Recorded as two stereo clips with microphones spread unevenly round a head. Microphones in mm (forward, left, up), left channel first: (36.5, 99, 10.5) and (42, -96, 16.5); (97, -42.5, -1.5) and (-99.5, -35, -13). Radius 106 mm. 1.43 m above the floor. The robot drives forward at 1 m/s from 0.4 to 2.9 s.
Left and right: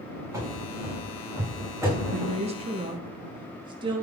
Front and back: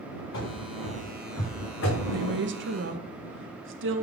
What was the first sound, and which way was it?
Running footsteps, 15° right.